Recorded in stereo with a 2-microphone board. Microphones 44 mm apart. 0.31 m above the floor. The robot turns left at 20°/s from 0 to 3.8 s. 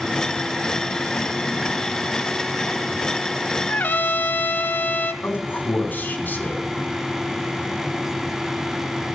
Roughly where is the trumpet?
Left.